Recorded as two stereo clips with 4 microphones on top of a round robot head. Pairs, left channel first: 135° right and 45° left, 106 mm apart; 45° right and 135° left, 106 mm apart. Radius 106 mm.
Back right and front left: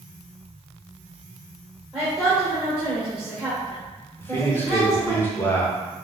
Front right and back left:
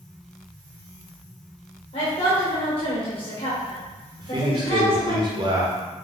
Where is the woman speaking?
40° right, 1.9 m.